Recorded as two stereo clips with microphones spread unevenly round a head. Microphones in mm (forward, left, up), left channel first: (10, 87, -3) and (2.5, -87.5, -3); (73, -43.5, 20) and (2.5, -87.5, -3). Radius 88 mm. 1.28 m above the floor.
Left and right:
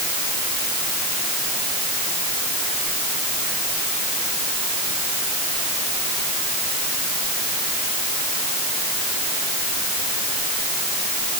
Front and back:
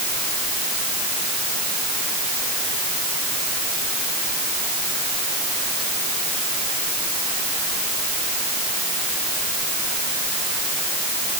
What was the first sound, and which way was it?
Only background noise.